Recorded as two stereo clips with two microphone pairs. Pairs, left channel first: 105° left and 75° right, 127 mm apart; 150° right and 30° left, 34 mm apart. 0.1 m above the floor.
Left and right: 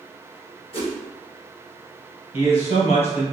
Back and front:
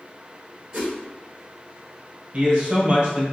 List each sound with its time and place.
0.7 s a whoosh: 95° left, 1.6 m
2.3 s a man speaking: 80° left, 1.8 m